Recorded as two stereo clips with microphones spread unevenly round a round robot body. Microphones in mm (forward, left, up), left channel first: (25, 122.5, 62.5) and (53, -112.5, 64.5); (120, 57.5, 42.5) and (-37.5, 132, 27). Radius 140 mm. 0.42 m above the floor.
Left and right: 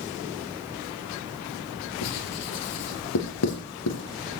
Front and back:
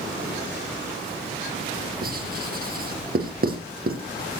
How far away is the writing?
About 3.5 m.